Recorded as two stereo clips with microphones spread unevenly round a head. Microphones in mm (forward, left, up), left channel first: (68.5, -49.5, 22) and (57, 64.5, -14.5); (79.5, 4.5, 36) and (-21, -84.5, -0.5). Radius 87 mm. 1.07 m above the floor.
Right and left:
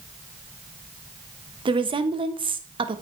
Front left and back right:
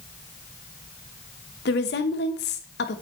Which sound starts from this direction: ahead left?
A woman speaking, at 1.6 s.